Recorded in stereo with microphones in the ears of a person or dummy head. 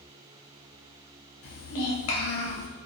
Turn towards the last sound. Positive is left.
turn(degrees=85)